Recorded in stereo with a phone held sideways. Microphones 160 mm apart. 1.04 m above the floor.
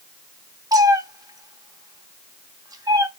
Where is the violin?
No violin in this recording.